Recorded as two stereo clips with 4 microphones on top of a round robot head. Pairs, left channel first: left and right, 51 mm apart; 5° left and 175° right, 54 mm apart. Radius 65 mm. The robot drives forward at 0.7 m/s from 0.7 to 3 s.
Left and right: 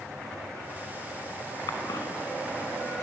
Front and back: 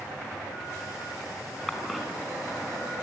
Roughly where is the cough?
Left.